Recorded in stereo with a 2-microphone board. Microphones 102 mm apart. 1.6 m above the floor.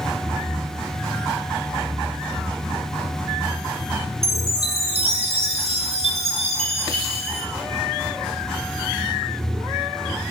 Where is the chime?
80° right, 1.3 m.